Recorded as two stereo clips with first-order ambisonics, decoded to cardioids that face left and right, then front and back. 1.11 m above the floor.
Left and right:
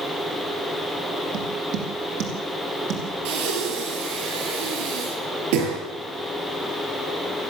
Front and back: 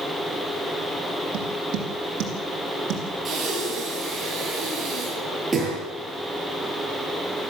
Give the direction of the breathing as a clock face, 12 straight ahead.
3 o'clock.